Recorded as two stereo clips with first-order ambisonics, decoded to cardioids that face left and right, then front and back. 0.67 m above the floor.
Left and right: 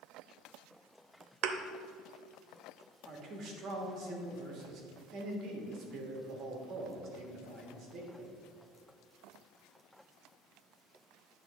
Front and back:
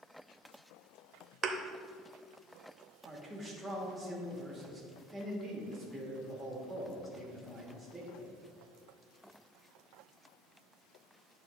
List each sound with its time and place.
1.4 s a thud: 115° right, 0.6 m
3.1 s a man speaking: 100° right, 1.3 m